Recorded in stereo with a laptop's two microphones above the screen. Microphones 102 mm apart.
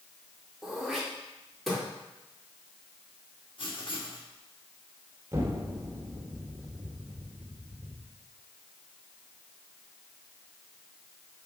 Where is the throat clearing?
Centre (ahead or behind), 3.5 m.